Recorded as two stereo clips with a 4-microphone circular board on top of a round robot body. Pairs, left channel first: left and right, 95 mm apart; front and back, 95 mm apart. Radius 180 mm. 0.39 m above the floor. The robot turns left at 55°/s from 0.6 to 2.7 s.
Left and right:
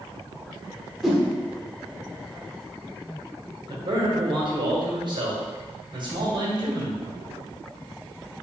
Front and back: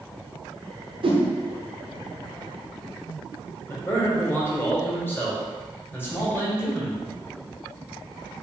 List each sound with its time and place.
1.0 s a whoosh: straight behind, 1.0 m; by 1.2 s 170° left, 1.0 m
3.7 s a man speaking: 65° right, 1.8 m